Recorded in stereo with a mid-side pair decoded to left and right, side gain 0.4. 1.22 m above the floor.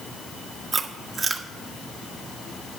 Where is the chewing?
45° right, 1.2 m.